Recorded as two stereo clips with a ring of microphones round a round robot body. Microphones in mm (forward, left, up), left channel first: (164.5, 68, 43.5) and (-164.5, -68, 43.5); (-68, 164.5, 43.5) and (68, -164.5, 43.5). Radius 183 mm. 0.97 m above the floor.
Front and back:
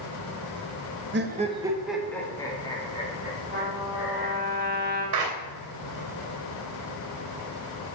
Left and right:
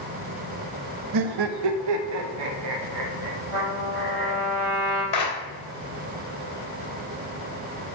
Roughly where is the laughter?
Right.